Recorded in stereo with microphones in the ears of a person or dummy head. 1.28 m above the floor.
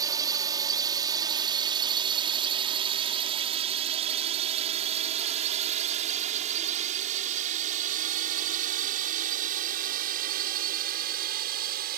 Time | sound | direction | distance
0.0 | a drone | 25° right (ahead or behind) | ?